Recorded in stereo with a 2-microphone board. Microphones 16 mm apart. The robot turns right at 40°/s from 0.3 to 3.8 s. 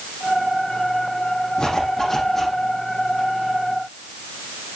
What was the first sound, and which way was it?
A zipper, 135° left.